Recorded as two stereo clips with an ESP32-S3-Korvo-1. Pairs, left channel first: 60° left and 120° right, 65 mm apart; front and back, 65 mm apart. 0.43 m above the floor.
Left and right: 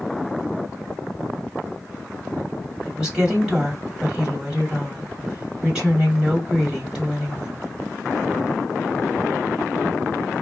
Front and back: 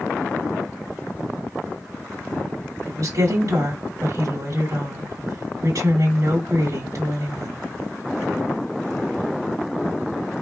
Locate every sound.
2.9 s a woman speaking: 160° left, 2 m